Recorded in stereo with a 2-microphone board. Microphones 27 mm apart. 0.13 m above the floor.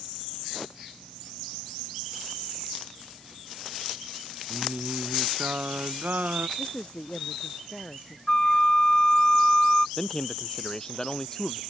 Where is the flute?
25° left (ahead or behind).